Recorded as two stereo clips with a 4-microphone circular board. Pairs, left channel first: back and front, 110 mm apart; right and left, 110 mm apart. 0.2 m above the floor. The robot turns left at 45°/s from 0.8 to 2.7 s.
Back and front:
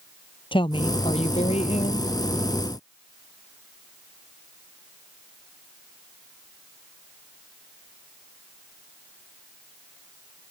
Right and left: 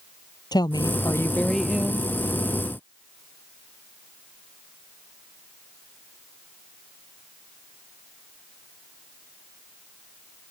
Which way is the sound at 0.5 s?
140° right.